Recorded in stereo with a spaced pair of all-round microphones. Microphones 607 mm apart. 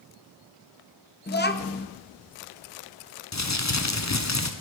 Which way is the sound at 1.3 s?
20° left (ahead or behind).